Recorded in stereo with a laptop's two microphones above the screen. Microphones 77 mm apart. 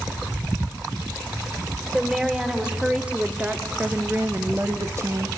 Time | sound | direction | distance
1.9 | a woman speaking | 10° right (ahead or behind) | 4 m